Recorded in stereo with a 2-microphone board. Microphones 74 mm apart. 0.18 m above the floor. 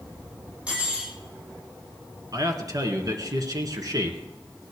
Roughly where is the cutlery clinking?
Centre.